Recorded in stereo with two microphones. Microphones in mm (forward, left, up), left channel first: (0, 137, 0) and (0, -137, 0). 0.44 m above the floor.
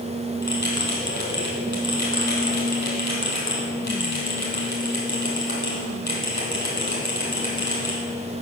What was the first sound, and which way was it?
A bell, 80° left.